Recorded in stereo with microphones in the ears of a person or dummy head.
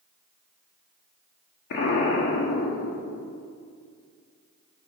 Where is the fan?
I don't hear a fan.